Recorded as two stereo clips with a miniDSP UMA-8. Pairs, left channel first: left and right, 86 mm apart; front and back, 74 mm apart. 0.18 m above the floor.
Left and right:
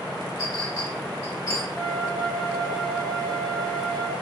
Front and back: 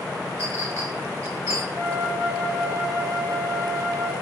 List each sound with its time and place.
0.4 s a clink: 140° left, 1.3 m
1.7 s a flute: 170° left, 0.7 m